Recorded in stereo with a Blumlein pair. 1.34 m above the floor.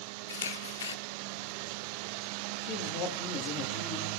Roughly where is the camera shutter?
Ahead left.